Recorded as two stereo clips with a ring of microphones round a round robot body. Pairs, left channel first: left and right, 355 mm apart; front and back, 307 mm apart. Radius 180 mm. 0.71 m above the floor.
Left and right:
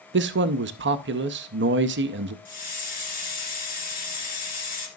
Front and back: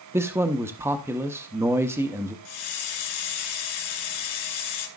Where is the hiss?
20° left, 2.5 m.